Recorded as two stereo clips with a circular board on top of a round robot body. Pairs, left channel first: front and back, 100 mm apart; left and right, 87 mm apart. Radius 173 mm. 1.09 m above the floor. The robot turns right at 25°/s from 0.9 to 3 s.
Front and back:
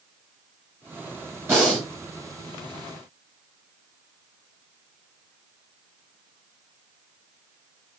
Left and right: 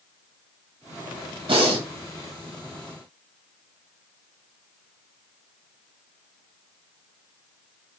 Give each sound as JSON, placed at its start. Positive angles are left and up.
{"t": 1.5, "sound": "breathing", "azimuth_deg": -110, "distance_m": 0.6}